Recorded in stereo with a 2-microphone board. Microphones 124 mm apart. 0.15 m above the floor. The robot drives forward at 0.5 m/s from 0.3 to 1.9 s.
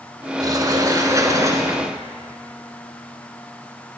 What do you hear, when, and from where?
0.4 s a sliding door: 30° right (ahead or behind), 1.2 m; by 1.9 s 25° right (ahead or behind), 1.6 m